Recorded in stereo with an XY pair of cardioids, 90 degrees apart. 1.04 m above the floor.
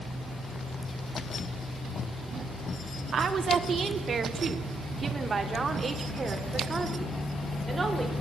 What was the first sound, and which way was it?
A woman speaking, 55° right.